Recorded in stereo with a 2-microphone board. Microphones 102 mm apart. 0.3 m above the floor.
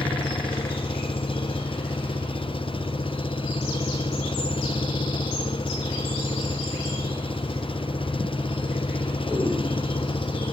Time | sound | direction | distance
0.0 | an engine running | 60° left (ahead or behind) | ?